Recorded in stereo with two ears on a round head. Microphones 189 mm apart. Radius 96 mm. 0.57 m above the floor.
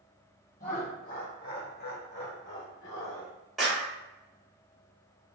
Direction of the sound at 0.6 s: 35° left (ahead or behind).